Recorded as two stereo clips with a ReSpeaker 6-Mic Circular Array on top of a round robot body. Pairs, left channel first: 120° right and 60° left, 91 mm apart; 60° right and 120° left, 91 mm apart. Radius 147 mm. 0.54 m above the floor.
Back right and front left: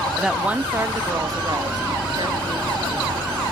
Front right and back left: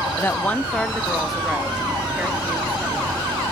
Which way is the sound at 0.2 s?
25° right.